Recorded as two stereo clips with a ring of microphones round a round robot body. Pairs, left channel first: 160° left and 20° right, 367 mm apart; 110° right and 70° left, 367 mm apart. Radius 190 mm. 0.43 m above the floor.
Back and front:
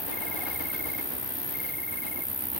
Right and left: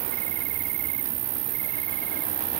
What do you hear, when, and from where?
0.0 s an insect: 65° left